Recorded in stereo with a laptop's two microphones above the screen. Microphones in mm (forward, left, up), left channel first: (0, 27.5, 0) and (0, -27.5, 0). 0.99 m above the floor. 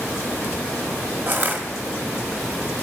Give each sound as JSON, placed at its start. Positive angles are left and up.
{"t": 1.3, "sound": "crushing", "side_deg": -35, "distance_m": 1.4}